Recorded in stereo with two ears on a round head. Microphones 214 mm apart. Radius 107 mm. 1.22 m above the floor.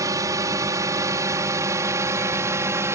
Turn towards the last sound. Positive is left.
turn(degrees=-10)  # may be behind; listen again after turning